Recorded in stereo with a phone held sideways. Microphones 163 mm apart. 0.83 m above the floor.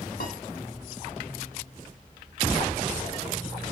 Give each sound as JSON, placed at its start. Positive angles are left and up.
{"t": 0.2, "sound": "a piano", "side_deg": 65, "distance_m": 0.9}